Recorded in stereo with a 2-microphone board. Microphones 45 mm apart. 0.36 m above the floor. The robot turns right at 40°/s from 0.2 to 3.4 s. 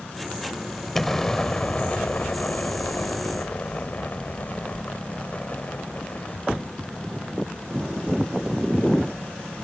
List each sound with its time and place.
0.9 s an explosion: 10° left; by 6.4 s 105° left